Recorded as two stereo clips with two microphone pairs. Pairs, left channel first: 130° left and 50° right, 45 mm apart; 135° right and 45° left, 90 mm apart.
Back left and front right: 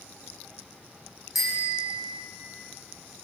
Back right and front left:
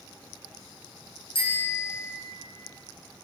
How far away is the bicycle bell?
About 7.5 m.